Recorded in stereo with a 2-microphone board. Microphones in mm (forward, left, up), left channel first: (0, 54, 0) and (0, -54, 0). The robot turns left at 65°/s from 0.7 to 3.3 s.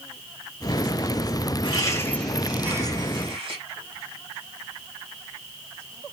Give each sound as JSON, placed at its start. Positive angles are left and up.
{"t": 1.6, "sound": "laughter", "azimuth_deg": 50, "distance_m": 2.0}